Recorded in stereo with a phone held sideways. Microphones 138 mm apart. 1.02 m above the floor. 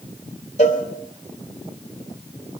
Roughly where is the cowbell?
Left.